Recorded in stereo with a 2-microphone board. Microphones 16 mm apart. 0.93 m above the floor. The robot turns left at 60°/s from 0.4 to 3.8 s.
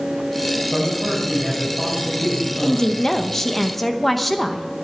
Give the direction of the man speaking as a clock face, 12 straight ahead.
4 o'clock.